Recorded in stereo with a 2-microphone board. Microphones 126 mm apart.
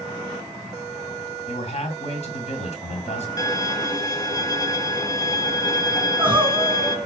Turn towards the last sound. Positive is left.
turn(degrees=-15)  # may be behind; listen again after turning